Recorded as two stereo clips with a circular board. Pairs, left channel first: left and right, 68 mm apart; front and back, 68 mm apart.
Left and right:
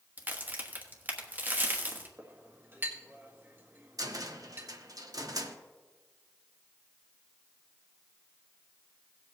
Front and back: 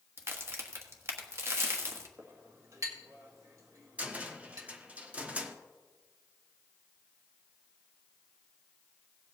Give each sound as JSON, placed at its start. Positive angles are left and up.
{"t": 0.2, "sound": "a crack", "azimuth_deg": -145, "distance_m": 1.4}
{"t": 2.2, "sound": "a clink", "azimuth_deg": -145, "distance_m": 1.8}
{"t": 4.0, "sound": "a cupboard door", "azimuth_deg": -110, "distance_m": 0.9}